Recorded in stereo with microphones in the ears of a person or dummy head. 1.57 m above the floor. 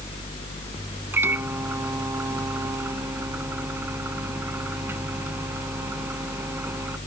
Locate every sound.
1.1 s a microwave: 10° right (ahead or behind)